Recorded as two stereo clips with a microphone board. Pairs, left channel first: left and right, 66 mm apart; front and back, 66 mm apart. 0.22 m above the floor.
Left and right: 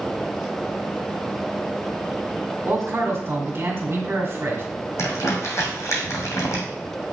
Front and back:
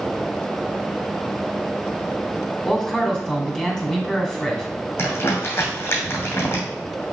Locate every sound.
2.6 s a man speaking: 75° right, 1.9 m
5.0 s crumpling: 50° left, 2.5 m